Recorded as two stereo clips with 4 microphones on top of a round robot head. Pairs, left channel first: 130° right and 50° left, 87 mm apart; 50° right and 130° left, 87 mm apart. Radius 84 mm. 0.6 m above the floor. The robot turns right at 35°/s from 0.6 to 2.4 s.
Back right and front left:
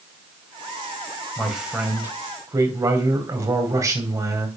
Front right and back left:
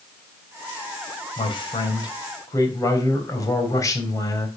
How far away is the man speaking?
About 3 m.